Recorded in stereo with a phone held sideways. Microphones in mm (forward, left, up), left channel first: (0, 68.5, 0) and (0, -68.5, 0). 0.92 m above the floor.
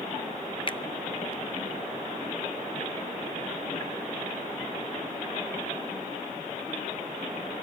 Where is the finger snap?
35° left (ahead or behind), 0.5 m.